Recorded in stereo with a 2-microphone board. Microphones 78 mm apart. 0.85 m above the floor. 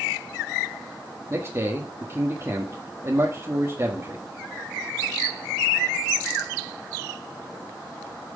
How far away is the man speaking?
About 1.5 m.